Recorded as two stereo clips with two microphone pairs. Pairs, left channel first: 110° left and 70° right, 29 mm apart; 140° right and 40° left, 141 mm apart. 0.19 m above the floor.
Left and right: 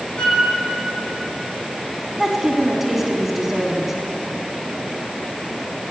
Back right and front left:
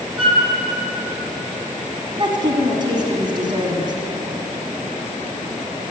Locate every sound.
0.2 s a flute: 65° left, 1.8 m
2.2 s a woman speaking: straight ahead, 1.3 m